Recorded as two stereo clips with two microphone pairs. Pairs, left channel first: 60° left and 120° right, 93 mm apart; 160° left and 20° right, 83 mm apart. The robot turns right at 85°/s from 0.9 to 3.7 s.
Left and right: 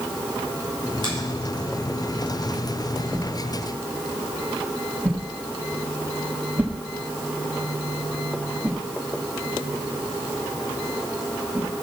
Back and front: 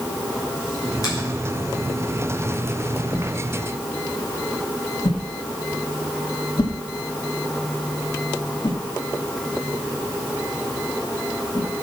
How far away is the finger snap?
About 6.5 m.